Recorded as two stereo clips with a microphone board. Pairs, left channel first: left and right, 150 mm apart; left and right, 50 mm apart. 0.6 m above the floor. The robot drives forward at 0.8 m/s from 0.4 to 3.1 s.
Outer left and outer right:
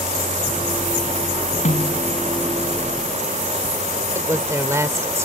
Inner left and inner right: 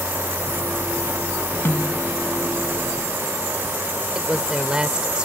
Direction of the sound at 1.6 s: 50° left (ahead or behind).